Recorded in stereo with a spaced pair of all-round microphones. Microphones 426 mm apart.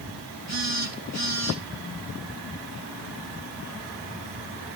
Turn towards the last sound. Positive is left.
turn(degrees=-40)  # may be behind; listen again after turning